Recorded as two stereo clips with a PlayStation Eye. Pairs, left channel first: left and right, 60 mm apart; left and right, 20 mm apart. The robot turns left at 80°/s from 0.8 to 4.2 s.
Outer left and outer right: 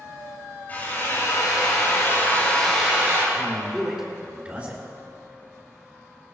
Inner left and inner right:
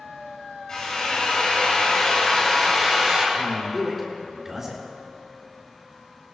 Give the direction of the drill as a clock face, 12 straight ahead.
7 o'clock.